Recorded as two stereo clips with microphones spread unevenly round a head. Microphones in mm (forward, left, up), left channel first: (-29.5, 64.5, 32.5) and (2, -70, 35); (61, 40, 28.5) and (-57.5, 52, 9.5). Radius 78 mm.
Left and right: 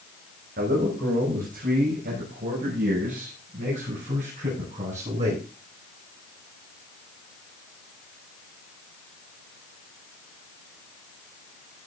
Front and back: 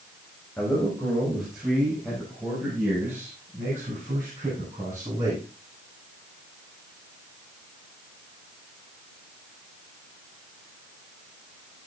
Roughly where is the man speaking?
Right.